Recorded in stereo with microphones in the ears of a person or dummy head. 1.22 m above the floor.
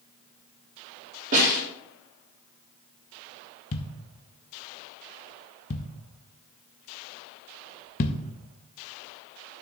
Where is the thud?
35° left (ahead or behind), 0.6 m.